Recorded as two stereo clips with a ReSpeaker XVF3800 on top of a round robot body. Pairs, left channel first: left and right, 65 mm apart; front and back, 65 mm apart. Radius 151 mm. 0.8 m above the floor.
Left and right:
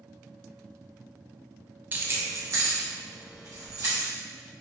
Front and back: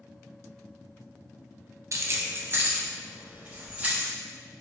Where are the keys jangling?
145° right, 0.6 m; by 4.1 s 110° right, 1.8 m.